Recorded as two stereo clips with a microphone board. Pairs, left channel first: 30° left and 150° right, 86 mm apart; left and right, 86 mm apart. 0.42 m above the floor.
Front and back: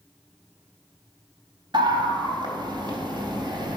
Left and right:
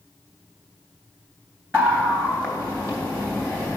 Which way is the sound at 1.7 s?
155° right.